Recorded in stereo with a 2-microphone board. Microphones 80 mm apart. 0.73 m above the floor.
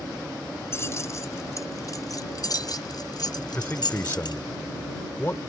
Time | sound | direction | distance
0.7 | keys jangling | 35° left (ahead or behind) | ?
3.5 | a man speaking | 30° left (ahead or behind) | ?